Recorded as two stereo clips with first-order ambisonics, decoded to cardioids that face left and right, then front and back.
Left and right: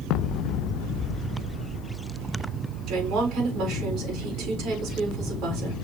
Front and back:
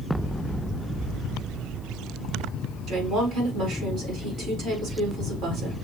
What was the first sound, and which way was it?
A woman speaking, 135° right.